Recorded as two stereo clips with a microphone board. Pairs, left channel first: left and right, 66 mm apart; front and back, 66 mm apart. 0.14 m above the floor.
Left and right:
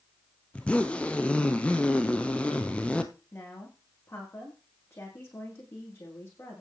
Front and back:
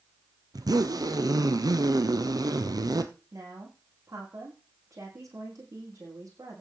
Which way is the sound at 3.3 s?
140° left.